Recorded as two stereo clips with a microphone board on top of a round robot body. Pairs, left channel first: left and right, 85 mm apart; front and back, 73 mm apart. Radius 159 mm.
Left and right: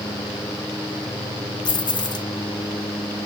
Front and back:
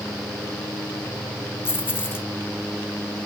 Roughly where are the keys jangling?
Ahead left.